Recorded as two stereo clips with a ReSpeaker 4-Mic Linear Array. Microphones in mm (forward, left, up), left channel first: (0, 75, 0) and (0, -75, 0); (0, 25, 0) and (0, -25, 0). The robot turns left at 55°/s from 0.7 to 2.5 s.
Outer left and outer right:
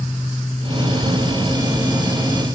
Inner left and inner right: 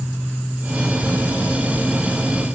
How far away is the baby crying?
I don't hear a baby crying.